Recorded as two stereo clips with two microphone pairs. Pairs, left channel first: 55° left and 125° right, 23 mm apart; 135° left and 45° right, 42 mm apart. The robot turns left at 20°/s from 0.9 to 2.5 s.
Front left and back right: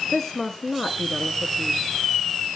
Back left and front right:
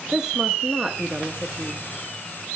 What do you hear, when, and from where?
0.1 s a woman speaking: 5° right, 1.1 m; by 1.9 s 20° right, 1.1 m